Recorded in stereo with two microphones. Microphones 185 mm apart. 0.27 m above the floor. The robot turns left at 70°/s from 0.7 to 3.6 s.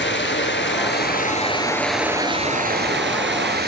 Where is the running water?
85° left, 1.2 m; by 3.7 s 115° right, 1.2 m.